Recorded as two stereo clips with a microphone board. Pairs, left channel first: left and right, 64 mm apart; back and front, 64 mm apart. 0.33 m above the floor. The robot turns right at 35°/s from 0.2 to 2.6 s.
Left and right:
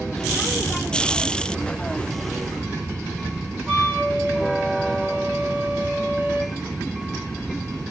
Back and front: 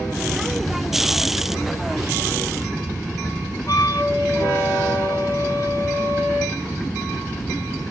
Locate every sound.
3.7 s a flute: 165° right, 1.8 m